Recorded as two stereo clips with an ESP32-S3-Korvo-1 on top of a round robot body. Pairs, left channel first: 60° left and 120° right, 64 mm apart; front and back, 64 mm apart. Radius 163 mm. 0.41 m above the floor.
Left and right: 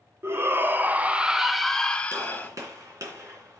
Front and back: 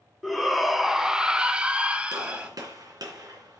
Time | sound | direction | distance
0.2 | a shout | 90° right | 1.2 m
2.1 | a gunshot | 160° right | 3 m